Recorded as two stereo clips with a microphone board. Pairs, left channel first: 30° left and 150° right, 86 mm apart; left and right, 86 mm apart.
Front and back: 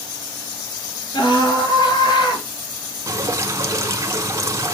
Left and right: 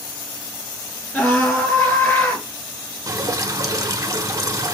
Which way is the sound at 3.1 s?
110° right.